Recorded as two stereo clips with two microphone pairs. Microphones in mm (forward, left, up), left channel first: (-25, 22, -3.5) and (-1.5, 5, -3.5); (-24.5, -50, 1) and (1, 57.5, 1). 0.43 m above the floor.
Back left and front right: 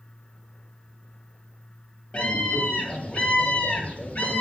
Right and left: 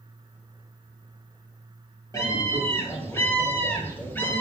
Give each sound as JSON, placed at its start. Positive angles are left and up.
{"t": 2.1, "sound": "a scream", "azimuth_deg": -165, "distance_m": 8.5}